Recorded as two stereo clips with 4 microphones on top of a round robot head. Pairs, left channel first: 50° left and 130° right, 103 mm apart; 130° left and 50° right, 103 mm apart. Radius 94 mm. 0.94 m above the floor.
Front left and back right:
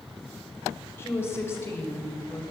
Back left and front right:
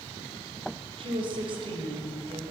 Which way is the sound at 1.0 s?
15° right.